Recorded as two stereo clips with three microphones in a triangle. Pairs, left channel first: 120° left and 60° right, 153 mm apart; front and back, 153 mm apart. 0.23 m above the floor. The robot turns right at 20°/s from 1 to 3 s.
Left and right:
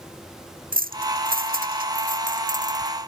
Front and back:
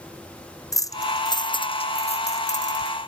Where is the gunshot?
No gunshot in this recording.